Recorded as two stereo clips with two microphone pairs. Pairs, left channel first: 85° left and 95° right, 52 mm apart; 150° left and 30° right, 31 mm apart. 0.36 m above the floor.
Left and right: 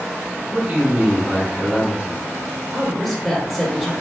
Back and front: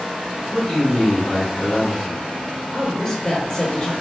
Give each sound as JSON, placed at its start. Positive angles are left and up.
{"t": 0.5, "sound": "a man speaking", "azimuth_deg": -145, "distance_m": 1.5}
{"t": 2.7, "sound": "a woman speaking", "azimuth_deg": 160, "distance_m": 0.8}